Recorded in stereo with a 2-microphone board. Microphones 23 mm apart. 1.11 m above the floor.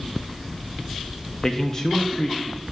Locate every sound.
1.4 s a man speaking: 25° left (ahead or behind), 0.7 m